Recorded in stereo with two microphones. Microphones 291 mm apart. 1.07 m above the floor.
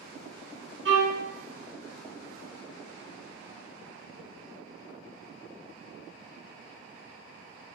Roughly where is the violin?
Right.